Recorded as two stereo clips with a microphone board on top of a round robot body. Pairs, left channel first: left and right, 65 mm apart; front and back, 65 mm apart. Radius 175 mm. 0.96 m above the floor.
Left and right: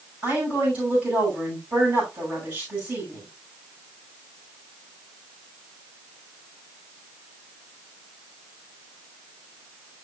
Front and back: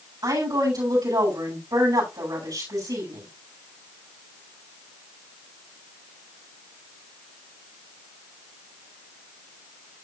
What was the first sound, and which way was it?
A woman speaking, 160° right.